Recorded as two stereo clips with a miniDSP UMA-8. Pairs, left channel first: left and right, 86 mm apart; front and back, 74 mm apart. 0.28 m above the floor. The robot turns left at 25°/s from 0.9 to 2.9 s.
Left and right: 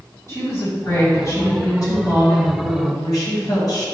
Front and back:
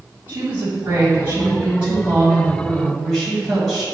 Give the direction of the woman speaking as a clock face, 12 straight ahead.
8 o'clock.